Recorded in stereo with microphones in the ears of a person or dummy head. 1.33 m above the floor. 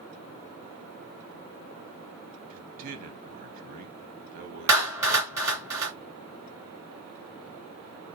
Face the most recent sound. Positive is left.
turn(degrees=-15)  # may be behind; listen again after turning